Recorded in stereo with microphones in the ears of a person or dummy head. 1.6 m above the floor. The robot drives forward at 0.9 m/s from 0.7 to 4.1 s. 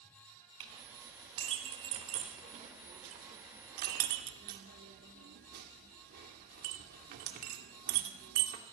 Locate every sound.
0.6 s a clink: 25° right (ahead or behind), 5 m; by 8.7 s 55° right (ahead or behind), 3 m